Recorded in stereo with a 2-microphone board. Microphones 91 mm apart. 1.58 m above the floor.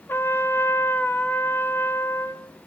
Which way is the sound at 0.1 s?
25° left (ahead or behind).